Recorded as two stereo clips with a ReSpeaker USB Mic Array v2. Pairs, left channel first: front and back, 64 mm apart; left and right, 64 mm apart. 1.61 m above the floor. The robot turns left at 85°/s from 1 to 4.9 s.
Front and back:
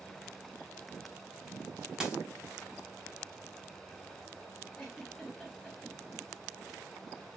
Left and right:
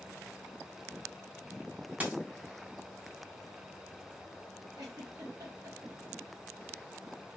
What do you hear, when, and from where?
2.0 s a dropped coin: 115° right, 1.2 m; by 2.2 s 130° right, 1.2 m
4.8 s a giggle: 75° right, 2.5 m; by 5.8 s 85° right, 2.5 m